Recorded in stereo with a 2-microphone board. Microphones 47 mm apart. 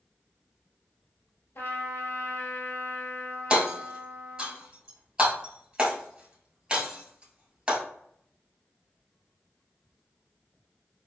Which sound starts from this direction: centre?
Hammering, at 3.5 s.